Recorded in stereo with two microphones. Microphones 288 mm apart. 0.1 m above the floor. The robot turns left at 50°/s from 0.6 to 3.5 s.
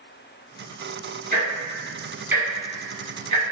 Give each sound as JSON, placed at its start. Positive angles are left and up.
{"t": 1.3, "sound": "ticking", "side_deg": -30, "distance_m": 1.7}